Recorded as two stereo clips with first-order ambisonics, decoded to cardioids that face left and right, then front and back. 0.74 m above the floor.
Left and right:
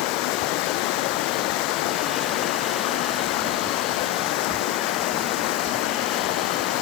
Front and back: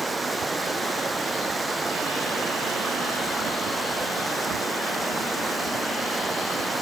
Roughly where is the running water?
Left.